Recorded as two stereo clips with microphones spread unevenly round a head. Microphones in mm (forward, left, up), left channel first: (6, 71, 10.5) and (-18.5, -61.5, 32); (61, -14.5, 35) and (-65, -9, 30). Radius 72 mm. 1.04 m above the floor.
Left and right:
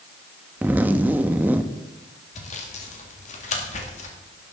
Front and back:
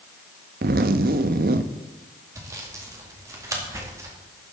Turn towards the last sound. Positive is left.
turn(degrees=110)